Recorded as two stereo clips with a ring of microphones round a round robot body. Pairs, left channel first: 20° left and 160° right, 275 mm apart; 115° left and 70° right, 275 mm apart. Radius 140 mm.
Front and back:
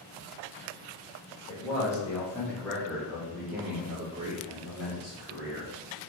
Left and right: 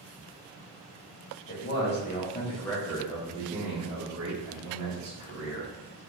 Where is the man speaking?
95° left, 1.2 m; by 5.7 s 85° right, 1.8 m.